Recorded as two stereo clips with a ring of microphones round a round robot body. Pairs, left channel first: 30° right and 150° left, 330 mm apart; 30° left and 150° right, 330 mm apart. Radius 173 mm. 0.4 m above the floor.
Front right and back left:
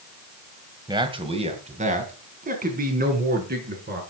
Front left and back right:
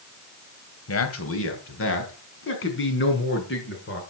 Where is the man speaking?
75° left, 2.5 m; by 4.0 s 90° left, 6 m.